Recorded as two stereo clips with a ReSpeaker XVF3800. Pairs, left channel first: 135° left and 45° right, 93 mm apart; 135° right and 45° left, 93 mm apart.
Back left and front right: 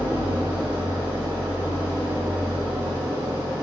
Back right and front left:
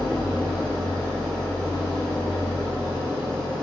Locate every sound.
0.0 s an engine running: 65° right, 1.2 m